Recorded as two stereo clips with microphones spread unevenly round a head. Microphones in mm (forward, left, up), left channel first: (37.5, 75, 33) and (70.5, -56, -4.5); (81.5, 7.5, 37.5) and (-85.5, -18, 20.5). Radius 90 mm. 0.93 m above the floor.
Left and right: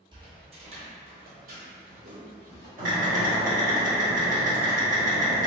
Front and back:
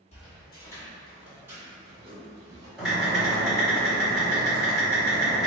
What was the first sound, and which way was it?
Footsteps, 20° right.